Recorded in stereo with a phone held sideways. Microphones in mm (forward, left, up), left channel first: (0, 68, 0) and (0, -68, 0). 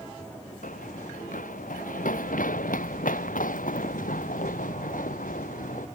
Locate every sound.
0.6 s running footsteps: 80° left